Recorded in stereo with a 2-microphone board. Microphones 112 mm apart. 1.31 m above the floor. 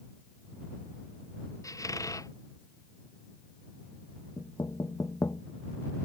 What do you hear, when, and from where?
1.6 s a squeak: 30° left (ahead or behind)
4.4 s knocking: 30° left (ahead or behind)